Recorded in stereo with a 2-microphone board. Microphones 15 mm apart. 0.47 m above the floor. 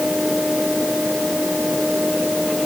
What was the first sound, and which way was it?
Only background noise.